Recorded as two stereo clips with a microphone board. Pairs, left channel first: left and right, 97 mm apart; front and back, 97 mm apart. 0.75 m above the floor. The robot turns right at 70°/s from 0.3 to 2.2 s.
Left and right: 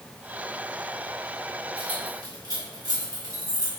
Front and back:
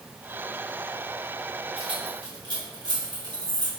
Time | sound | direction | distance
1.8 | keys jangling | 170° right | 2 m